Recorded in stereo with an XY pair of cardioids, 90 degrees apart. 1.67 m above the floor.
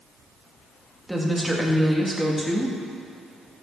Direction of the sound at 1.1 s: 5° right.